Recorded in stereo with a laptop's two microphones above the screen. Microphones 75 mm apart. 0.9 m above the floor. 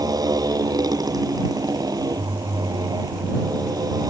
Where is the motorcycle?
60° right (ahead or behind).